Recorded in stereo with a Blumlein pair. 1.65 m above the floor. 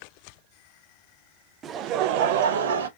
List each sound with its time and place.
1.6 s laughter: 20° right, 0.6 m; by 2.9 s 65° right, 1.1 m